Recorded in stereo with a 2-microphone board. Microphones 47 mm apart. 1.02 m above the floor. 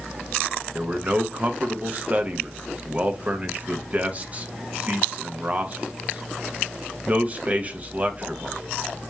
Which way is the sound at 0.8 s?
30° right (ahead or behind).